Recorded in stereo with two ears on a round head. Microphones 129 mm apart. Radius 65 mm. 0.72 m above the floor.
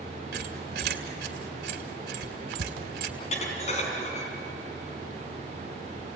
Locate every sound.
0.3 s a squeak: 75° right (ahead or behind), 2.5 m
3.2 s dishes clattering: 50° left (ahead or behind), 5 m